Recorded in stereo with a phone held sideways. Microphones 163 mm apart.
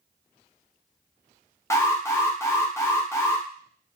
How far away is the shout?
No shout in this recording.